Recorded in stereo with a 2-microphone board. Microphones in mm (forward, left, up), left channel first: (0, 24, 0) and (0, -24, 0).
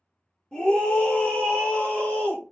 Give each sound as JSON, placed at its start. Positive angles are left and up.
{"t": 0.5, "sound": "a scream", "side_deg": 20, "distance_m": 1.1}